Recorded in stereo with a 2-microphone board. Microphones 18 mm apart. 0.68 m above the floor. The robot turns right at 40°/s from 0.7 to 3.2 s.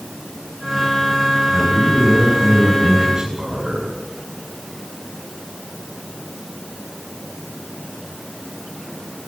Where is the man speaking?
100° right, 6.5 m; by 3.9 s 30° right, 6.5 m.